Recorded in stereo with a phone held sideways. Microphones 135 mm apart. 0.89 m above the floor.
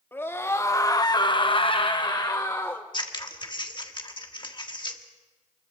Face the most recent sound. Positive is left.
turn(degrees=35)  # may be behind; listen again after turning